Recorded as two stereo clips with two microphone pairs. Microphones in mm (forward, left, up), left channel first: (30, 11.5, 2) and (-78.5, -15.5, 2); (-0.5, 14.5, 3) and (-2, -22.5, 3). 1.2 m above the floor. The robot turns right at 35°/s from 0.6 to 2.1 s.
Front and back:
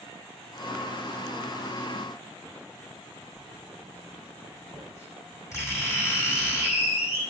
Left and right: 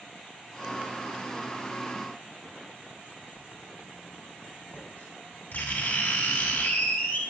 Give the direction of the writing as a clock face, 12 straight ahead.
9 o'clock.